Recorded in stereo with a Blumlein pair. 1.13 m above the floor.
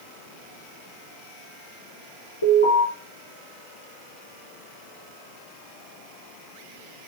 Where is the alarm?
70° left, 3.5 m.